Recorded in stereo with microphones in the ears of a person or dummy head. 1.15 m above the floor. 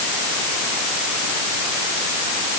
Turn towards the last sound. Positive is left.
No sound to turn to.